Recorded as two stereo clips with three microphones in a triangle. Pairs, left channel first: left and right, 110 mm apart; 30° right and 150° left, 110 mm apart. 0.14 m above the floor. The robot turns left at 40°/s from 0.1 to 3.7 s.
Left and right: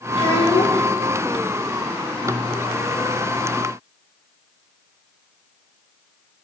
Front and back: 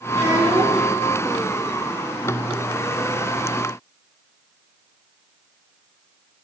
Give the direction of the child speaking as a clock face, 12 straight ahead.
9 o'clock.